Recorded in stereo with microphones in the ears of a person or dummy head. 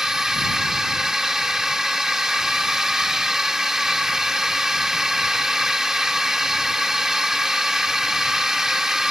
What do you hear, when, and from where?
0.0 s a drone: centre (ahead or behind)